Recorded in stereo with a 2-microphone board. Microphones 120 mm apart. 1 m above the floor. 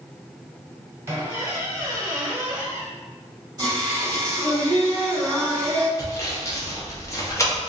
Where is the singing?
30° right (ahead or behind), 1.3 m.